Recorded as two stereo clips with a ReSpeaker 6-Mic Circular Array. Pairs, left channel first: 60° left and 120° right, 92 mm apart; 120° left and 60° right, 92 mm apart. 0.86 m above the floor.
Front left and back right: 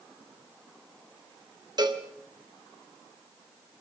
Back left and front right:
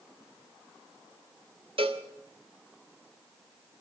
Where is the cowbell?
80° right, 1.5 m.